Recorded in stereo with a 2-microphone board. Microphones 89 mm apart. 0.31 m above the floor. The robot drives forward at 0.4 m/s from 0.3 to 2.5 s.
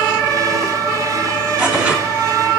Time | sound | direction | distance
1.6 | tearing paper | 15° right (ahead or behind) | 2.5 m